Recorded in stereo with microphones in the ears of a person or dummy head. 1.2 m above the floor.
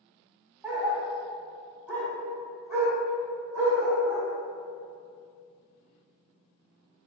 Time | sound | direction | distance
0.6 | a dog barking | 5° right (ahead or behind) | 0.8 m